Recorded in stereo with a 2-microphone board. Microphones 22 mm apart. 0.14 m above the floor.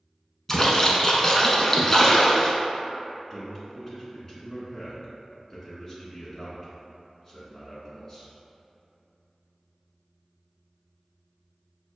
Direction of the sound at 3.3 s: 20° left (ahead or behind).